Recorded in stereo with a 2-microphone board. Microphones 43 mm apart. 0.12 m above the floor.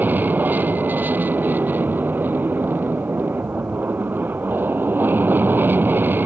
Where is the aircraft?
45° right (ahead or behind); by 6.3 s 55° right (ahead or behind).